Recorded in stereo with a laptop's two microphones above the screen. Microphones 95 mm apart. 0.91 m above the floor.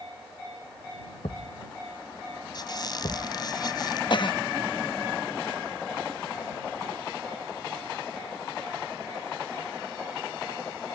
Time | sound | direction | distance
1.2 | a thud | 75° left (ahead or behind) | ?
2.5 | a squeak | 45° left (ahead or behind) | ?
4.1 | a cough | 50° left (ahead or behind) | ?